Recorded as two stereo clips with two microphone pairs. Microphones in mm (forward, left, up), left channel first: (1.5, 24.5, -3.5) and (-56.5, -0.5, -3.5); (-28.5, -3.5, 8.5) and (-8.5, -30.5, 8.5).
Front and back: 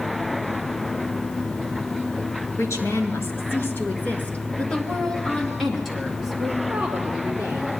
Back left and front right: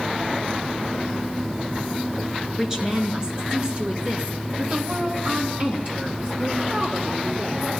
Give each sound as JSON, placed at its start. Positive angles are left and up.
{"t": 2.6, "sound": "a woman speaking", "azimuth_deg": 15, "distance_m": 2.5}